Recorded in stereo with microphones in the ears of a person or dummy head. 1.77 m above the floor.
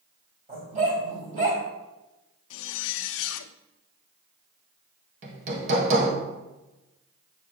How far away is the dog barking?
About 3.5 m.